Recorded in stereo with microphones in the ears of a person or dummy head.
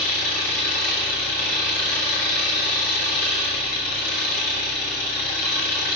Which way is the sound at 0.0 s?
50° left (ahead or behind).